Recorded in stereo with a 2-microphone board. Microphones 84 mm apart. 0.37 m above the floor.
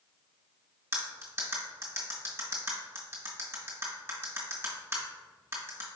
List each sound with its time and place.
0.9 s cutlery clinking: 25° right (ahead or behind), 1.5 m